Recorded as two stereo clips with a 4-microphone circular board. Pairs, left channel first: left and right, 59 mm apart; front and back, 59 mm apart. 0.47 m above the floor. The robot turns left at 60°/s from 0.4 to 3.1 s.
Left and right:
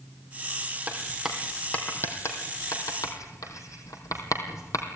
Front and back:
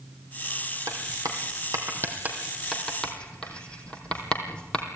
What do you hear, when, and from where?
0.9 s writing: 155° right, 3.5 m; by 4.8 s 70° left, 3.5 m